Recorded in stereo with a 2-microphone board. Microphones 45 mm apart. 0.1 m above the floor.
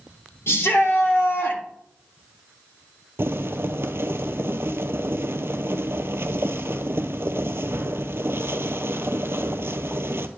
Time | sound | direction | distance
0.5 | a shout | 65° left (ahead or behind) | 3.5 m
3.2 | boiling | 65° right (ahead or behind) | 0.7 m